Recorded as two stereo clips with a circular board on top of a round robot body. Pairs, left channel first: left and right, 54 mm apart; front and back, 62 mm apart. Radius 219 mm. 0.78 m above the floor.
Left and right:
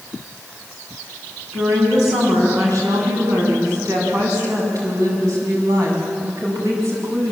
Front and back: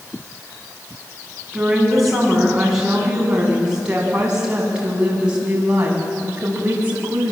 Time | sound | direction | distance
1.5 | a woman speaking | 95° right | 8 m